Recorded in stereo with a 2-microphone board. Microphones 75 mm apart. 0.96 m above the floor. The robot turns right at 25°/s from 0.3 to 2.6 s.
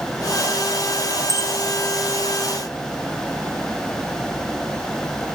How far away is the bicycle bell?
About 6 m.